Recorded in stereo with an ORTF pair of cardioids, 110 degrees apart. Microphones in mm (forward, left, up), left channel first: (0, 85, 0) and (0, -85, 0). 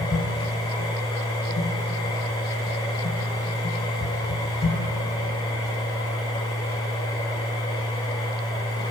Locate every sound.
0.0 s a machine running: 35° left, 2.5 m